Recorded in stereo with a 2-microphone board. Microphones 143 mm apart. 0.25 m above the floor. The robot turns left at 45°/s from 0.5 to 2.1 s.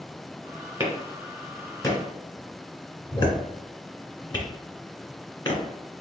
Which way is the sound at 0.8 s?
20° right (ahead or behind).